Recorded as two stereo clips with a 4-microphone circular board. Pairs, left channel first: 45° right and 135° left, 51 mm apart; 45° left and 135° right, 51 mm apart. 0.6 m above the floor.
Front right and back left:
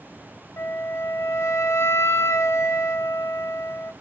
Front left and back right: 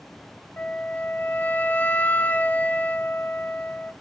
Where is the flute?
10° right, 0.6 m.